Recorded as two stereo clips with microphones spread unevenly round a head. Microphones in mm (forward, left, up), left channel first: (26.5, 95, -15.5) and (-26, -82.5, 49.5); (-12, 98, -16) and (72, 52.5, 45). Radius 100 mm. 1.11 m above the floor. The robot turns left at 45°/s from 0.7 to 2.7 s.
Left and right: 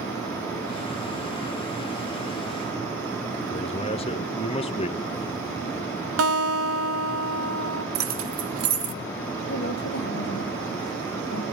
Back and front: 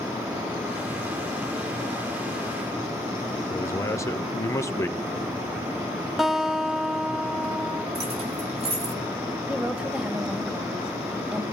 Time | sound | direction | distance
3.5 | a man speaking | 120° left | 1.2 m
6.2 | a guitar | 115° right | 0.8 m
8.0 | keys jangling | 85° right | 1.0 m
9.5 | a woman speaking | 60° left | 2 m